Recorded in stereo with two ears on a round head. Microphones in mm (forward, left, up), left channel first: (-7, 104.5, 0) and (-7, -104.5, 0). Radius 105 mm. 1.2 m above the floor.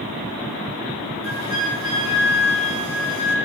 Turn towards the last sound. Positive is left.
turn(degrees=-60)  # may be behind; listen again after turning